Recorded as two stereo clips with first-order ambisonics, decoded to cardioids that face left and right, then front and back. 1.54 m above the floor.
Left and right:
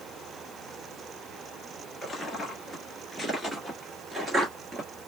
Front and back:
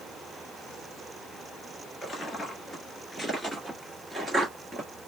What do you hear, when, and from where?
2.0 s footsteps: 30° left, 1.6 m; by 4.9 s 130° right, 1.7 m